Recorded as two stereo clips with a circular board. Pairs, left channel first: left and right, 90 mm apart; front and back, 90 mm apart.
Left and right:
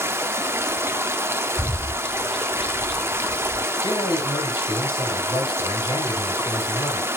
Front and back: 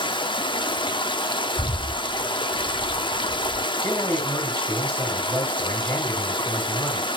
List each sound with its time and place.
0.0 s running water: 25° right, 0.8 m
1.6 s a bird: straight ahead, 2 m
3.8 s a man speaking: 60° left, 5 m